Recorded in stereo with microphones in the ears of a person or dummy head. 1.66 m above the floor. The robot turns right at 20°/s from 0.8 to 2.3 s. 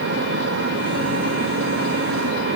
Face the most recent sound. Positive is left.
No sound to turn to.